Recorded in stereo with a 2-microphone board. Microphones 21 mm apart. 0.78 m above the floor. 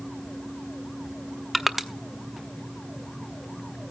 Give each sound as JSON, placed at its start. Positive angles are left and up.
{"t": 1.5, "sound": "crushing", "side_deg": -5, "distance_m": 0.9}